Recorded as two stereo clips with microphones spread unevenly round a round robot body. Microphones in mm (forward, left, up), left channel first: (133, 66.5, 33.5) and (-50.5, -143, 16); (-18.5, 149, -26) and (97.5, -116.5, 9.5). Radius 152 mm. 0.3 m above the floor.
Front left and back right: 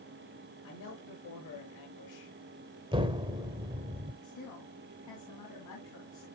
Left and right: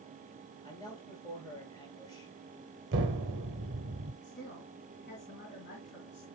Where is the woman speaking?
70° left, 3.5 m.